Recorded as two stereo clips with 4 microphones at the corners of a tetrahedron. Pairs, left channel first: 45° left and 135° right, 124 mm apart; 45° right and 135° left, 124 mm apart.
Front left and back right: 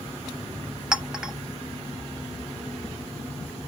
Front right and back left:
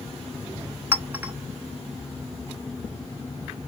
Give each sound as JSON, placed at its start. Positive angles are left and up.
{"t": 0.9, "sound": "a clink", "azimuth_deg": 155, "distance_m": 0.6}